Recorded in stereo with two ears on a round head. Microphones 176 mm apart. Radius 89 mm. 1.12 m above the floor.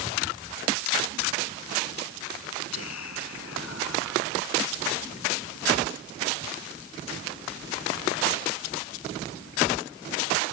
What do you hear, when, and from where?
2.7 s whispering: 85° left